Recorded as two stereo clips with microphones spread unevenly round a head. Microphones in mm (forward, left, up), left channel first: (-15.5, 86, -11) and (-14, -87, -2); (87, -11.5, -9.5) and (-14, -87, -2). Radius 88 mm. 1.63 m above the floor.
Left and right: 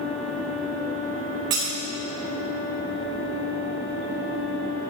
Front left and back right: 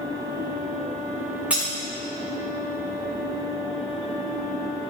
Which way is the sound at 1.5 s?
65° right.